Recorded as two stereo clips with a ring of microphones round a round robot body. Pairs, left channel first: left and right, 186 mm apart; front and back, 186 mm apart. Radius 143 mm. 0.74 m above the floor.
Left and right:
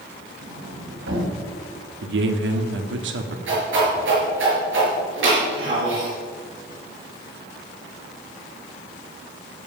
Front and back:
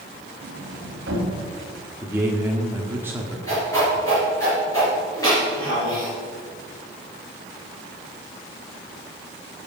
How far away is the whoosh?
About 5 m.